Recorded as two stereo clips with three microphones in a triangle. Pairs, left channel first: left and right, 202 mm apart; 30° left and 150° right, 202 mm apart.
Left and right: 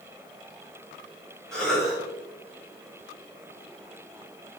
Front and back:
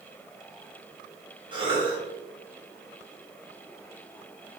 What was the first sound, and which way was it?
A cough, 175° left.